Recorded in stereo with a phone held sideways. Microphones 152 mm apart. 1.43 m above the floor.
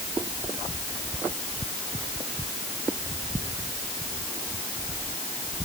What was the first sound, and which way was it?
Only background noise.